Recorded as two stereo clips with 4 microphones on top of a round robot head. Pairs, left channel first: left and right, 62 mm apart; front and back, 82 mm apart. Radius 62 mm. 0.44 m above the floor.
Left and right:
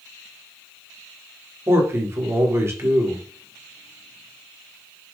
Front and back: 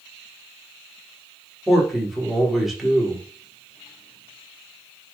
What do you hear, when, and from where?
1.7 s a man speaking: 95° right, 1.7 m